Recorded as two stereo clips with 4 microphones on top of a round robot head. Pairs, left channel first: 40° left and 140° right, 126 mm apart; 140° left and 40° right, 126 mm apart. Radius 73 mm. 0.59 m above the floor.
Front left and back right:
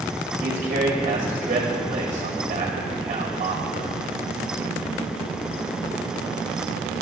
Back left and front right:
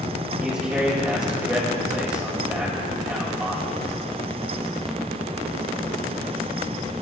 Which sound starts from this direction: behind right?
A man speaking, at 0.4 s.